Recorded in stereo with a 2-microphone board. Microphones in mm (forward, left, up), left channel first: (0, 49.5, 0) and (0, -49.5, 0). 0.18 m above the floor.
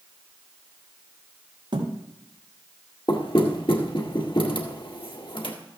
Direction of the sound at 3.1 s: 60° left (ahead or behind).